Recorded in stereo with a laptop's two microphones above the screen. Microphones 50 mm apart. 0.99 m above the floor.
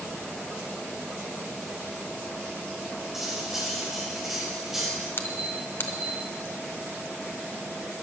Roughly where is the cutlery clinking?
Centre.